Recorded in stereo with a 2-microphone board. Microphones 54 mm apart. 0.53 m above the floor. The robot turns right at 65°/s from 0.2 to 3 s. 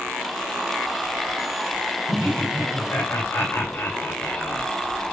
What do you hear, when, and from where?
2.1 s laughter: 65° left, 2.5 m; by 4.7 s 125° left, 2.5 m